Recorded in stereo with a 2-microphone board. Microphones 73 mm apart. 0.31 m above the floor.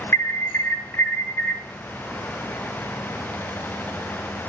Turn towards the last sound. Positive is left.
turn(degrees=35)  # may be behind; listen again after turning